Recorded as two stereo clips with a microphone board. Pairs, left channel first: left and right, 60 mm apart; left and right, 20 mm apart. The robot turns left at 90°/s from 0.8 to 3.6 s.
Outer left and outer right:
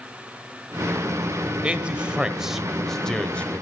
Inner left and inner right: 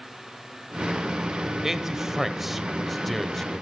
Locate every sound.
1.6 s a man speaking: 20° right (ahead or behind), 1.2 m; by 3.6 s 20° left (ahead or behind), 1.2 m